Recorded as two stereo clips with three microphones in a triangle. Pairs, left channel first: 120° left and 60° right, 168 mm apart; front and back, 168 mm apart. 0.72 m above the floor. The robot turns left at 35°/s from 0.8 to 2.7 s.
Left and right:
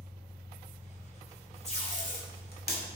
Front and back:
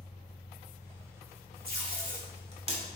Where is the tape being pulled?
165° left, 2 m; by 2.8 s 130° left, 2 m.